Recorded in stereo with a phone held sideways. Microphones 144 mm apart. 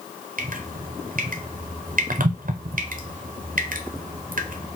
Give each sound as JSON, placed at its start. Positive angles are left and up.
{"t": 0.4, "sound": "dripping", "side_deg": -70, "distance_m": 0.6}